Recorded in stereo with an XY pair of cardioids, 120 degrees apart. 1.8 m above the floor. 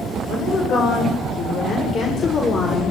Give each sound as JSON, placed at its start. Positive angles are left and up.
{"t": 0.3, "sound": "a woman speaking", "azimuth_deg": 55, "distance_m": 9.0}